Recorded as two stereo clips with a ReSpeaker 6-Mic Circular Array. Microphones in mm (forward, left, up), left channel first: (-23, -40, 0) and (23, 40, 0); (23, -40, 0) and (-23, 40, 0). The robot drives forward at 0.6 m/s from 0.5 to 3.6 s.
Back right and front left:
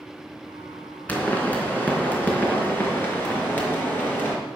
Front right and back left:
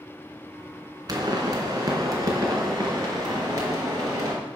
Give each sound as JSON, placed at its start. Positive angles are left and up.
{"t": 1.1, "sound": "a pop", "azimuth_deg": 170, "distance_m": 3.0}